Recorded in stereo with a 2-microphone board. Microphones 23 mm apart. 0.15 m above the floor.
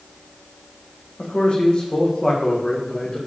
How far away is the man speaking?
About 6 m.